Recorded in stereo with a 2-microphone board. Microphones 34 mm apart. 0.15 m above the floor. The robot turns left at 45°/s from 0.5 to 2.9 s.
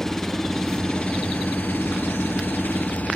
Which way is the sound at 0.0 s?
165° left.